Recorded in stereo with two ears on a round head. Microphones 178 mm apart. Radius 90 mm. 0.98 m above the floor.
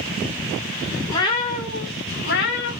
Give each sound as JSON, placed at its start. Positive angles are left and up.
{"t": 1.1, "sound": "a cat meowing", "side_deg": 15, "distance_m": 1.5}